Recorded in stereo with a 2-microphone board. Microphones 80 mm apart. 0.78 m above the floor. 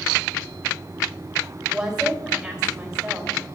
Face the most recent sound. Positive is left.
turn(degrees=-5)  # may be behind; listen again after turning